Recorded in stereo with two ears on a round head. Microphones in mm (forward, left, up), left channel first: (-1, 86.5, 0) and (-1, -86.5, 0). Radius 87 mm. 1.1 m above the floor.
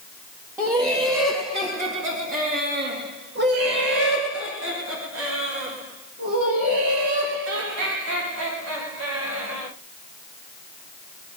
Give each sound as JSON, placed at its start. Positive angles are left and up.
{"t": 0.6, "sound": "laughter", "side_deg": -10, "distance_m": 2.0}